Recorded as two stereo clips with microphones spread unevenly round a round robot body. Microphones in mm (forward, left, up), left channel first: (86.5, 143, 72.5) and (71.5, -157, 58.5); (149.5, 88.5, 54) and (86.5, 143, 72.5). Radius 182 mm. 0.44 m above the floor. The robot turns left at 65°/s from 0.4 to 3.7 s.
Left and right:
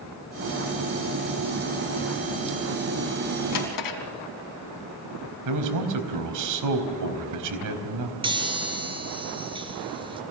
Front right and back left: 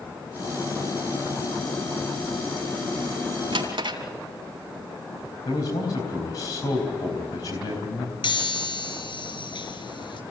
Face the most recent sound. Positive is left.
turn(degrees=-20)